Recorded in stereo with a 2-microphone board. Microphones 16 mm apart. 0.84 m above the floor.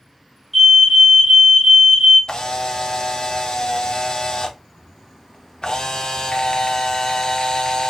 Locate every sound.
0.5 s a fire alarm: centre (ahead or behind), 1.7 m
2.3 s a camera shutter: 50° left (ahead or behind), 0.6 m